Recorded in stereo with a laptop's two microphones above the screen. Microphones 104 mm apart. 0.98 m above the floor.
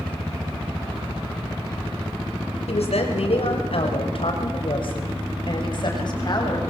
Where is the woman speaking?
75° left (ahead or behind), 5.5 m; by 6.6 s 40° left (ahead or behind), 7.5 m.